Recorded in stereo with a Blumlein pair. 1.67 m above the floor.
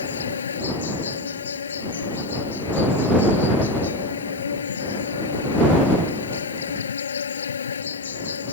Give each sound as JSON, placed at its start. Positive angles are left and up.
{"t": 0.0, "sound": "an insect", "azimuth_deg": 70}